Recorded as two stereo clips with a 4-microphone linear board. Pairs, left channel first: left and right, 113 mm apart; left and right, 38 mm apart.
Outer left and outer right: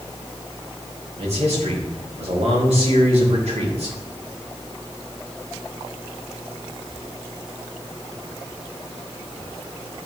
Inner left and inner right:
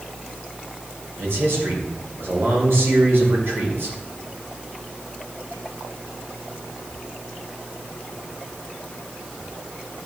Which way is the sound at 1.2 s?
65° right (ahead or behind).